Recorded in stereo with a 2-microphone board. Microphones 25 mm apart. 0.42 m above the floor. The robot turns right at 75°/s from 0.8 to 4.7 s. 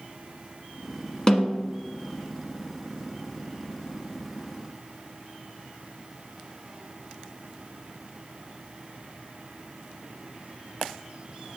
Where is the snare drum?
25° left, 1.3 m; by 1.7 s 55° left, 1.3 m.